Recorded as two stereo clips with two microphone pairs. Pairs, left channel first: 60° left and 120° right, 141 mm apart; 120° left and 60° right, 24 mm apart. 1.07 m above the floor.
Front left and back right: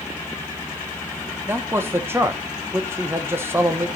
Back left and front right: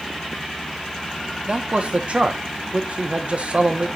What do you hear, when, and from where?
1.5 s a man speaking: 55° right, 1.1 m